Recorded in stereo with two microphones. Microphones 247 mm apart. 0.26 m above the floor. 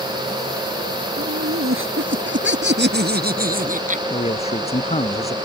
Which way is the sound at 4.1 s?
25° left (ahead or behind).